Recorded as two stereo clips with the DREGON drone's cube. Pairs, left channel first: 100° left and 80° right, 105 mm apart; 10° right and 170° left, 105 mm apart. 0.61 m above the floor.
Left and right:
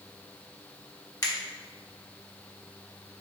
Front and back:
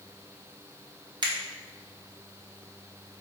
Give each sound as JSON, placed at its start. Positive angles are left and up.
{"t": 1.2, "sound": "a finger snap", "azimuth_deg": 140, "distance_m": 1.0}